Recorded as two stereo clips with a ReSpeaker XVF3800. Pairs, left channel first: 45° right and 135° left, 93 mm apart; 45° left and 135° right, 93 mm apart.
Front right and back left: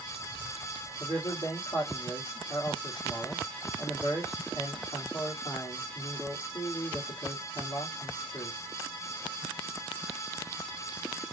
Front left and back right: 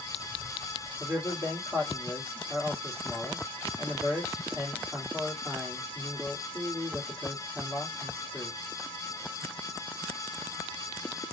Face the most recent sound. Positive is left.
turn(degrees=-80)